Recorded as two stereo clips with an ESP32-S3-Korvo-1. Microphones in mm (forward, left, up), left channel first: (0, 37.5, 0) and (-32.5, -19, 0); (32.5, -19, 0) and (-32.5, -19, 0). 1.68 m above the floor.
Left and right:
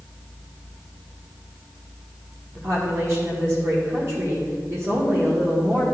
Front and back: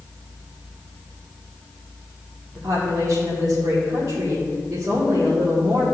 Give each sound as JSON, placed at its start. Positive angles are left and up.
{"t": 2.5, "sound": "a woman speaking", "azimuth_deg": -160, "distance_m": 1.9}